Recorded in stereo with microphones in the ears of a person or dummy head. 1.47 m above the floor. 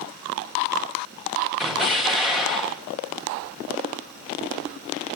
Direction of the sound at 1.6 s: Centre (ahead or behind).